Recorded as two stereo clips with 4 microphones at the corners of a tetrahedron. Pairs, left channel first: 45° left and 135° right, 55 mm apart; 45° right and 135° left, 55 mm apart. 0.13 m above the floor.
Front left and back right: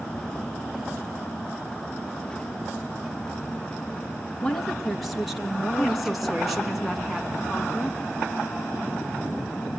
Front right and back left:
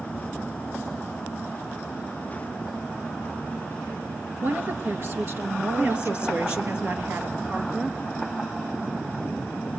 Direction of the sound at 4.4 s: 125° left.